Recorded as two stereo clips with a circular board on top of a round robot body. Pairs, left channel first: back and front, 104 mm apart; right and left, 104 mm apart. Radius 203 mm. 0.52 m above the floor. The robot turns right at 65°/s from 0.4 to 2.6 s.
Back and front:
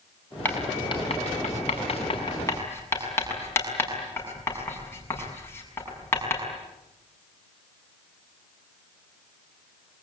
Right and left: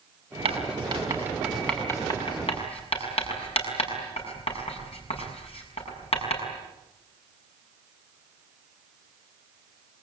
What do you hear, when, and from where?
0.5 s writing: 110° left, 6.5 m; by 6.4 s 110° right, 6.5 m